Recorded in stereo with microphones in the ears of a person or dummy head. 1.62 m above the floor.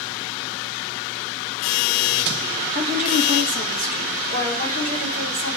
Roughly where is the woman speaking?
Right.